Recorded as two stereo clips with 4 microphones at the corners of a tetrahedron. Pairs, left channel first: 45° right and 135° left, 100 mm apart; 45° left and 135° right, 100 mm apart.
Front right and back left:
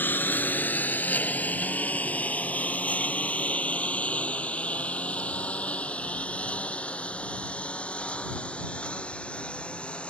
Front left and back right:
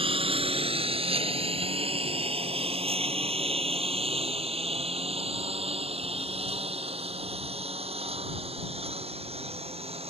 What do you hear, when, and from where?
0.0 s a lawn mower: 115° right; by 10.1 s 125° right